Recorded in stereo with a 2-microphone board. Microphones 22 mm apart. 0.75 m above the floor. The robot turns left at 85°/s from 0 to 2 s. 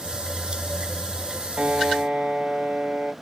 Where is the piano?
85° right, 1.0 m; by 3.1 s 120° right, 1.0 m.